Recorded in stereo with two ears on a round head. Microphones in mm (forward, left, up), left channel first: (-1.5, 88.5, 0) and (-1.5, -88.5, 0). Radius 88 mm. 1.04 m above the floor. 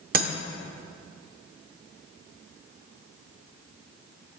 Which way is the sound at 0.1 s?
45° right (ahead or behind).